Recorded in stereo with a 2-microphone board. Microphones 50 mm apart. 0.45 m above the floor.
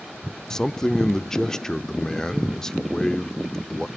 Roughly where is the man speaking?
Centre.